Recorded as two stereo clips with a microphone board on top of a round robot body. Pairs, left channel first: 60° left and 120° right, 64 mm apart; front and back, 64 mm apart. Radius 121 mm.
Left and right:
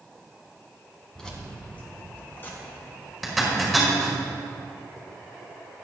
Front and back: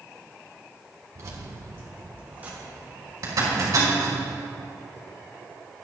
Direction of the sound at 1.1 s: 140° left.